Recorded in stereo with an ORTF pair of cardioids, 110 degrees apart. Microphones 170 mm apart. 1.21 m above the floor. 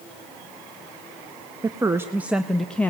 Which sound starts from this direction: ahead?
A woman speaking, at 1.6 s.